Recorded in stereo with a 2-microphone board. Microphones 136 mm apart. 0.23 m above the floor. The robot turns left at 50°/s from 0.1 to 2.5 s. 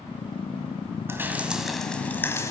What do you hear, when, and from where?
1.1 s dripping: 20° right (ahead or behind), 1.8 m; by 2.5 s 25° left (ahead or behind), 1.8 m